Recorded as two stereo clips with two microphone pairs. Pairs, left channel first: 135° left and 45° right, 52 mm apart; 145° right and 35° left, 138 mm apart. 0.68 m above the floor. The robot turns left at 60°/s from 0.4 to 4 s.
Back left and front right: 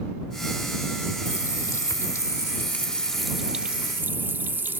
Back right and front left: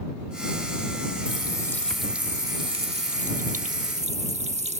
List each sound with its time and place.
1.2 s a running tap: 170° left; by 4.8 s 5° left